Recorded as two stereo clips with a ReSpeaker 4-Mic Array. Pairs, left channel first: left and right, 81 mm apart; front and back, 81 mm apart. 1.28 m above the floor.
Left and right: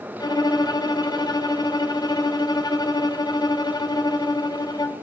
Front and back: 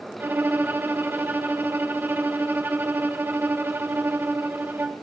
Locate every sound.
0.2 s a violin: 115° left, 0.6 m